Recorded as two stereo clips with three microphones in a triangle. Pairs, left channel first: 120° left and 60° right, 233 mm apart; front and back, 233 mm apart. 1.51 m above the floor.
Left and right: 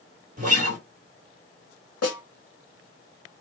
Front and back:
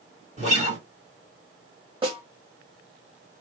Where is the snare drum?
110° left, 1.8 m.